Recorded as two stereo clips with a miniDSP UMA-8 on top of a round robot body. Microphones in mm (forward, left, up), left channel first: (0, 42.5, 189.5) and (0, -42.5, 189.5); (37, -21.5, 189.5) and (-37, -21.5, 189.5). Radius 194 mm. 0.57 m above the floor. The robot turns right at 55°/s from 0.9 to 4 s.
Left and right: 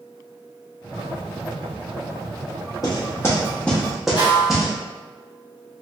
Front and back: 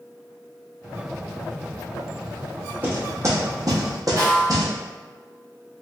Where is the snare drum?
130° left, 1.5 m.